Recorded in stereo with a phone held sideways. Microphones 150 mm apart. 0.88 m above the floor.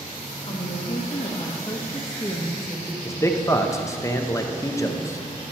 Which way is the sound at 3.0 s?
20° left (ahead or behind).